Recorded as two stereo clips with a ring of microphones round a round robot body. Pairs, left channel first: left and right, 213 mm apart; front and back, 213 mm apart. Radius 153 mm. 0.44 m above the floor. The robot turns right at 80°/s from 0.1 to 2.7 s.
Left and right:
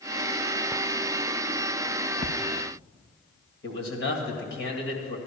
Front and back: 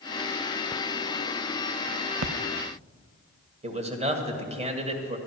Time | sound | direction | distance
2.2 | a splash | 160° left | 0.6 m
3.6 | a man speaking | 125° left | 2 m